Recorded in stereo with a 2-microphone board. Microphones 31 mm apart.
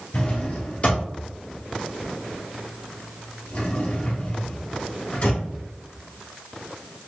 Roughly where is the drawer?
Left.